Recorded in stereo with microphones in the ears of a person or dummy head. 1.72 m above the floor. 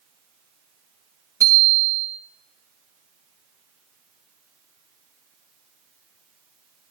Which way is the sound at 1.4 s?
15° right (ahead or behind).